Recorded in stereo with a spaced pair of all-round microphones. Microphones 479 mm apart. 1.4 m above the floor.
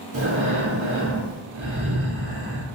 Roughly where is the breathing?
Right.